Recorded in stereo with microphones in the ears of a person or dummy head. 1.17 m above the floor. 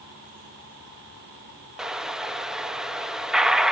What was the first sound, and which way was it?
An explosion, 5° right (ahead or behind).